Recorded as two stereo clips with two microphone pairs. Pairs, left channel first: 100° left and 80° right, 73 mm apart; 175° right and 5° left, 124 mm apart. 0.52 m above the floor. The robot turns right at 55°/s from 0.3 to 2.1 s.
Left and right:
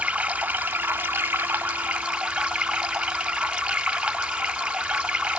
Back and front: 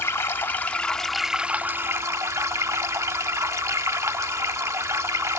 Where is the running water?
125° right, 0.9 m; by 5.4 s 25° right, 0.9 m.